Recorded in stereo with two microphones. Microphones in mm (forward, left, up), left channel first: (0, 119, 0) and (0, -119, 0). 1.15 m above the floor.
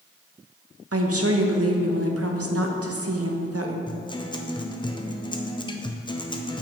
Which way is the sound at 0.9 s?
75° right (ahead or behind).